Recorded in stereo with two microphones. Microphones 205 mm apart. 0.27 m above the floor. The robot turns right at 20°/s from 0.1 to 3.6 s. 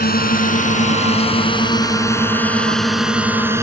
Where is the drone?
45° left (ahead or behind); by 3.6 s 10° right (ahead or behind).